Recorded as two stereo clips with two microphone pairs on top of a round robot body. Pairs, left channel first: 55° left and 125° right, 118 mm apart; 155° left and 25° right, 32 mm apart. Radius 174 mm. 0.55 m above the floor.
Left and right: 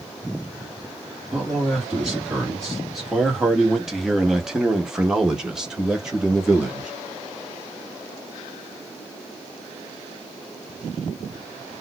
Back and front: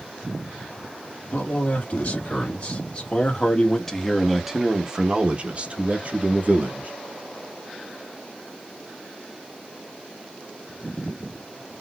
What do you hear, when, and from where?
1.3 s a man speaking: 150° left, 2 m; by 6.9 s 40° right, 1.8 m